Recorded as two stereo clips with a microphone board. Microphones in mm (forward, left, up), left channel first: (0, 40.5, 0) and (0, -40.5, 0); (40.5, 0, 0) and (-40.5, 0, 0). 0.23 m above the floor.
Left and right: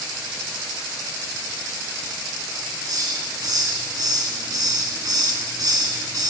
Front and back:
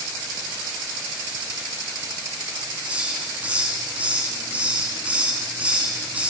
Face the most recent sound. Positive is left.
turn(degrees=-110)